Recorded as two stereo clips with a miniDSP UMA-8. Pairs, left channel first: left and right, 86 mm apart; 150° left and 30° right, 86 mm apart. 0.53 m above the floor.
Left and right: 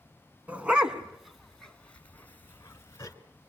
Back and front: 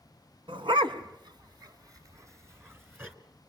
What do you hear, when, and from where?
0.5 s a dog barking: 15° right, 1.5 m; by 3.1 s 35° left, 1.8 m